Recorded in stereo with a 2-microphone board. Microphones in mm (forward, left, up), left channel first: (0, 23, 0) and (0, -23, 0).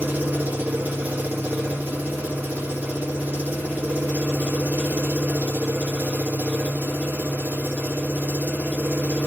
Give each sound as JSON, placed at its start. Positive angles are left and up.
{"t": 0.0, "sound": "an engine running", "side_deg": -40, "distance_m": 2.0}